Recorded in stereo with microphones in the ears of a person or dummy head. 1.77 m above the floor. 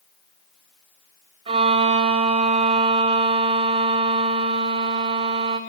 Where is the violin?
30° right (ahead or behind), 1.0 m.